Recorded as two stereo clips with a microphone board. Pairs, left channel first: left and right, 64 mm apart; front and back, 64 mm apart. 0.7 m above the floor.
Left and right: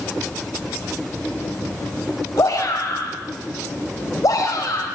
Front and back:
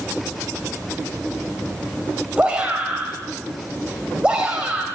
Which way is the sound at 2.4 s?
110° left.